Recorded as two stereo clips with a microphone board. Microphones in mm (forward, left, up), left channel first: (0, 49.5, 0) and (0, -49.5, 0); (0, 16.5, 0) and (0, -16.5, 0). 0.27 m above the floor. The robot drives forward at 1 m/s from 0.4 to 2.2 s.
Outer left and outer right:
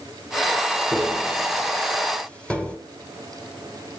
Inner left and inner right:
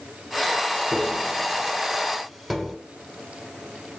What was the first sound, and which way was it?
Tapping, 5° left (ahead or behind).